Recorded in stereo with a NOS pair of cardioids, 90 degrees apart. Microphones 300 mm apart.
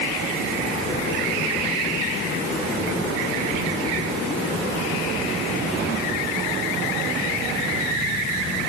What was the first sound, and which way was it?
Only background noise.